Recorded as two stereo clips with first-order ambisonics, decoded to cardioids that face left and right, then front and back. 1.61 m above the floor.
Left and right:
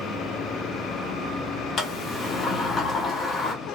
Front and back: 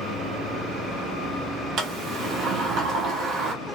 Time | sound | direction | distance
1.8 | a sliding door | 150° left | 0.8 m